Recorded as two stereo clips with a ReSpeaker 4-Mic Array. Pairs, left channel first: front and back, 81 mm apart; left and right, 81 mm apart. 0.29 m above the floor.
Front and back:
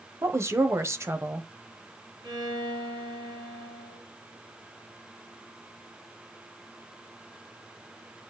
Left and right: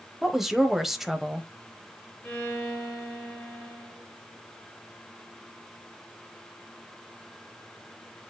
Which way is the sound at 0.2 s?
175° right.